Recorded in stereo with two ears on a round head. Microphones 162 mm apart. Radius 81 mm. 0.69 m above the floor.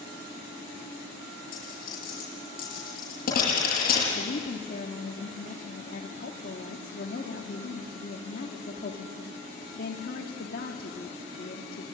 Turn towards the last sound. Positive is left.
turn(degrees=50)  # may be behind; listen again after turning